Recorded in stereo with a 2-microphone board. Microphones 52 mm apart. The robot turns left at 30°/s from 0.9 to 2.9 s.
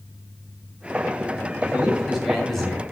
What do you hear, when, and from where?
1.6 s a man speaking: 155° right, 6.5 m; by 2.8 s 165° left, 6.5 m